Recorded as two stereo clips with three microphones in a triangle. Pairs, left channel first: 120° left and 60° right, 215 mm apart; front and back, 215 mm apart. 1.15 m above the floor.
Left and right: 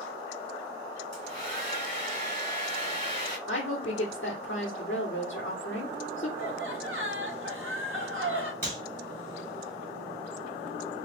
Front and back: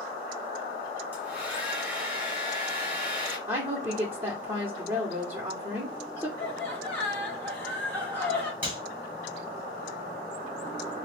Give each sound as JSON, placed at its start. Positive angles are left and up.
{"t": 1.1, "sound": "a hair dryer", "azimuth_deg": -100, "distance_m": 2.5}
{"t": 3.5, "sound": "a woman speaking", "azimuth_deg": 105, "distance_m": 0.9}
{"t": 6.4, "sound": "laughter", "azimuth_deg": -80, "distance_m": 1.5}
{"t": 8.6, "sound": "a clap", "azimuth_deg": -100, "distance_m": 2.5}